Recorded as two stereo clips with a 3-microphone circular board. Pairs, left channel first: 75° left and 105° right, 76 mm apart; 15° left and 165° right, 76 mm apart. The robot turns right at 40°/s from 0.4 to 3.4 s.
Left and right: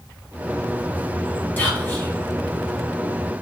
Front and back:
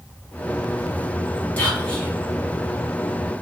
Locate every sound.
1.6 s whispering: 55° left, 0.8 m; by 2.1 s 75° left, 0.8 m